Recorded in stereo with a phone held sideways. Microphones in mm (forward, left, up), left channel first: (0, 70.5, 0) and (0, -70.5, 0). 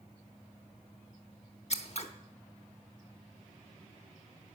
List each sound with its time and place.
1.7 s scissors: 50° left (ahead or behind), 0.8 m